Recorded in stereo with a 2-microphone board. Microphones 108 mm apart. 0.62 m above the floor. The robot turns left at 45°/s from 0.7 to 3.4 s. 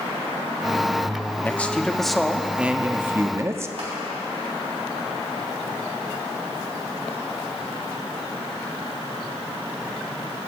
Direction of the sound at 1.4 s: 15° left (ahead or behind).